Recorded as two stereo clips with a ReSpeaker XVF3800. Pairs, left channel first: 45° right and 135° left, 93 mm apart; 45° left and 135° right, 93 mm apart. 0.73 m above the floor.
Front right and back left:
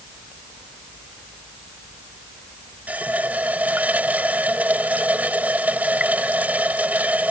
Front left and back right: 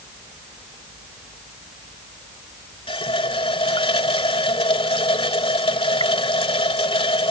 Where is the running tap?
60° left.